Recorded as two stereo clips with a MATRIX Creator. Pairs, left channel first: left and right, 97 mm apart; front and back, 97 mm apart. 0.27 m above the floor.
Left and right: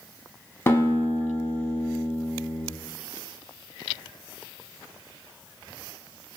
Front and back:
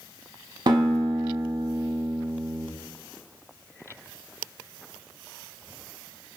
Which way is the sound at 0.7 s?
150° left.